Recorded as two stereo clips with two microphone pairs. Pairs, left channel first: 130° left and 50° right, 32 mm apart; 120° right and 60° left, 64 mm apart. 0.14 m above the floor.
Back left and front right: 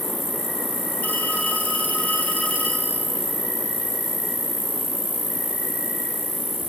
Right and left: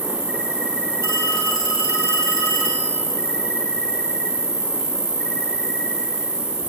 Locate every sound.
0.0 s an insect: 30° left, 2.5 m
1.0 s a phone ringing: 100° left, 2.5 m